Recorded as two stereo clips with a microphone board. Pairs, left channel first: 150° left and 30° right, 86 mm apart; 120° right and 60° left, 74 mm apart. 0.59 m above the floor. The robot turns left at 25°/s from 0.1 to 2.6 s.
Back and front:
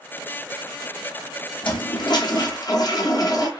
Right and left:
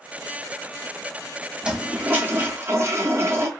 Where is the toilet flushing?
135° left, 0.6 m; by 3.5 s 110° left, 0.6 m.